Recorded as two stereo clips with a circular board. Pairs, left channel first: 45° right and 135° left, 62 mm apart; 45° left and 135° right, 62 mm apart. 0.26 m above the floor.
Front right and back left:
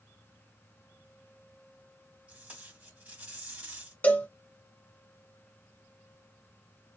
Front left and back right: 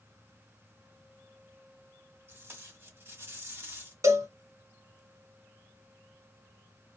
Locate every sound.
2.3 s tape being pulled: 170° right, 1.3 m
4.0 s a cowbell: 105° right, 0.9 m